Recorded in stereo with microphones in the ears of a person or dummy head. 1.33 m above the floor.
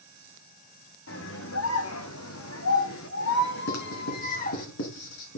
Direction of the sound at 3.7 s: 70° left (ahead or behind).